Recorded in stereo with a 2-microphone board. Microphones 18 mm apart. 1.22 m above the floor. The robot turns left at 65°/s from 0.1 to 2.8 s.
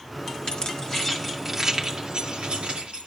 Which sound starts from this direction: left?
Keys jangling, at 0.5 s.